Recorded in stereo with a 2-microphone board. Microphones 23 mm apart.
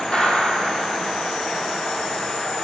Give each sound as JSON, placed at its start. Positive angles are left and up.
{"t": 0.1, "sound": "a gunshot", "side_deg": 40, "distance_m": 2.5}